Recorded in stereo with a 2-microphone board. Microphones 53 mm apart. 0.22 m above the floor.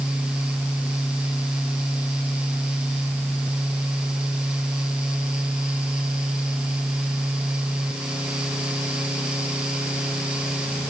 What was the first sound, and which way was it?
Only background noise.